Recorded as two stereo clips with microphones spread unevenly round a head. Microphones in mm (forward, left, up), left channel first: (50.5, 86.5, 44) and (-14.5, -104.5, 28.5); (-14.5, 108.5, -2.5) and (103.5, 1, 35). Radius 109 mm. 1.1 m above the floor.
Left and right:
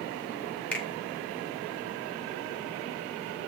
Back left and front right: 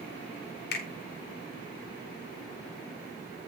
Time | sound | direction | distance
0.7 | a finger snap | 155° left | 2.5 m